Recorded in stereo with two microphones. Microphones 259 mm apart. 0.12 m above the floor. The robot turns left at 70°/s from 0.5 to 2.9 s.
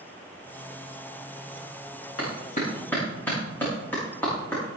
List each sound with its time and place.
2.2 s a clap: 55° left (ahead or behind), 8 m; by 4.6 s 5° left (ahead or behind), 8 m